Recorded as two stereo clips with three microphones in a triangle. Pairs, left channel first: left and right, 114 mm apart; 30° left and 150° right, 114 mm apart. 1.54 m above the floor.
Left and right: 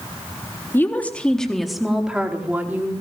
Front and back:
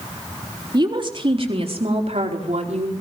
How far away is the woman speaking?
About 3.5 m.